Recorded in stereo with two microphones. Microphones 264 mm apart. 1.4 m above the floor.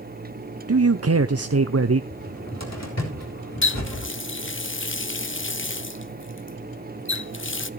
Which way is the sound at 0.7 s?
65° right (ahead or behind).